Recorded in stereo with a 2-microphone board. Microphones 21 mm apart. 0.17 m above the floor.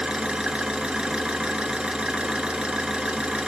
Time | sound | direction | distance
0.0 | an engine running | 60° right (ahead or behind) | 0.7 m